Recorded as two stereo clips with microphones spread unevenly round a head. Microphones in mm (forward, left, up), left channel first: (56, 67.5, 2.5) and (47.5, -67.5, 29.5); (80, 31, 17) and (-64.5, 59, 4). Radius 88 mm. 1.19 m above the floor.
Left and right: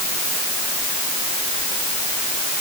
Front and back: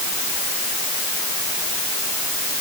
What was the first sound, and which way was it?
Only background noise.